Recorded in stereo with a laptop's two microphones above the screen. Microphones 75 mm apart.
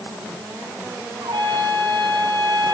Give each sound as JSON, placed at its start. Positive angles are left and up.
{"t": 1.2, "sound": "a trumpet", "side_deg": -80, "distance_m": 4.0}